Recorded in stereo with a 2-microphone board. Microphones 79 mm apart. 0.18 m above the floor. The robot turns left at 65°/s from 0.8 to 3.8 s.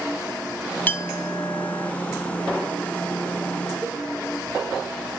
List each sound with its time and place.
0.9 s a clink: 20° left (ahead or behind), 0.7 m; by 1.9 s 25° left (ahead or behind), 0.7 m
3.8 s a cowbell: 5° left (ahead or behind), 5.5 m